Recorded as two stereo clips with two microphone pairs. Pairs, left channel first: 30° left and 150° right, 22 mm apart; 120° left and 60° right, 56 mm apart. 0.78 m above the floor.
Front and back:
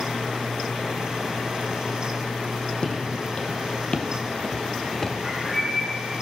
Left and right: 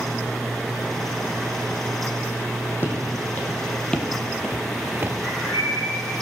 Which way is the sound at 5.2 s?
115° left.